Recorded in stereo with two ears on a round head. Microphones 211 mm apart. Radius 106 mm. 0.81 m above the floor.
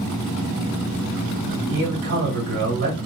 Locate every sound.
1.7 s a man speaking: 65° right (ahead or behind), 1.7 m